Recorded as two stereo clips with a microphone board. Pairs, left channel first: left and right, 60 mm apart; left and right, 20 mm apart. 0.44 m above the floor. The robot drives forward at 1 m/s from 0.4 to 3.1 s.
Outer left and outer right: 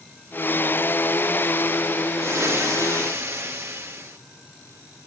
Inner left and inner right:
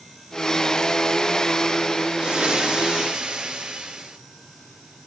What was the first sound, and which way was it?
Frying, 45° right (ahead or behind).